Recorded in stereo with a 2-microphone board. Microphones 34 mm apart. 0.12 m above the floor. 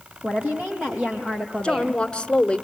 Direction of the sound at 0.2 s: 60° right (ahead or behind).